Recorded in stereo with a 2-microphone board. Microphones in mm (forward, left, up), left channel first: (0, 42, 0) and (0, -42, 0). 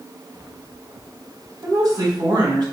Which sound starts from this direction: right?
A woman speaking, at 1.6 s.